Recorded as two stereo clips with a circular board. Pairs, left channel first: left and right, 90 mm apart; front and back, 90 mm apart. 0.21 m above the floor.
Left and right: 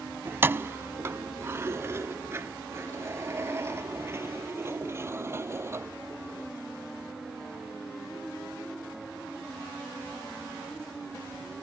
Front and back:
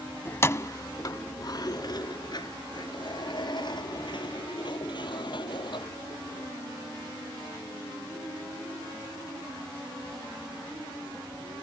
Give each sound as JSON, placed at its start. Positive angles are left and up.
{"t": 0.2, "sound": "keys jangling", "azimuth_deg": -45}